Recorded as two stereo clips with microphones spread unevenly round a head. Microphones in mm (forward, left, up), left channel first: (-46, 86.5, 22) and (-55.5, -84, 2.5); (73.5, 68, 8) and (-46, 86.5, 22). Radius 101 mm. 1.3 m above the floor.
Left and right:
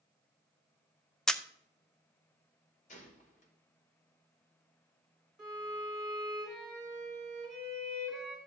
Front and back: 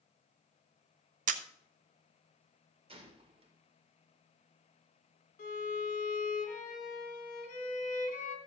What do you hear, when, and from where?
1.3 s a camera shutter: 170° left, 0.6 m
2.9 s a gunshot: 130° left, 2 m
5.4 s a violin: 5° right, 2 m